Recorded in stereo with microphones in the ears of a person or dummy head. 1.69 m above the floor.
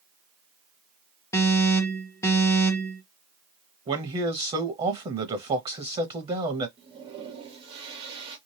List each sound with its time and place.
1.3 s an alarm: 15° left (ahead or behind), 1.3 m
3.9 s a man speaking: 25° right (ahead or behind), 0.6 m
6.8 s a toilet flushing: 30° right (ahead or behind), 1.6 m